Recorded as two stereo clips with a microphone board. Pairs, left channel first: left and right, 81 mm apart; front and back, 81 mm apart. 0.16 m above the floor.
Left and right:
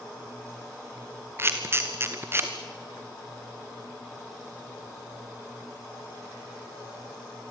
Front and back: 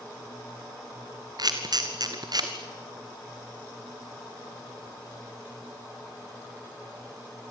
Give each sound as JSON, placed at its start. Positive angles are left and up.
{"t": 1.4, "sound": "a camera shutter", "azimuth_deg": -150, "distance_m": 2.0}